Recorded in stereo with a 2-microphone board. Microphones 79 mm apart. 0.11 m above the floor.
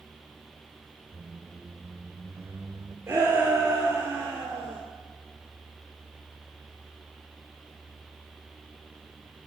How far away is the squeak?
About 1.0 m.